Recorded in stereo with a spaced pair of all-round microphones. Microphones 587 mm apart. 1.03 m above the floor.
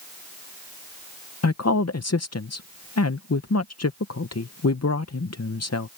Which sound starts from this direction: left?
A woman speaking, at 1.4 s.